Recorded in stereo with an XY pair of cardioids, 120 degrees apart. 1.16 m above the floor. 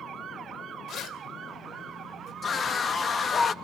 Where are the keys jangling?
65° left, 3 m.